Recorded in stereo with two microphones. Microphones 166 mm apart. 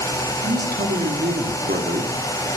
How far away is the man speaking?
About 4 m.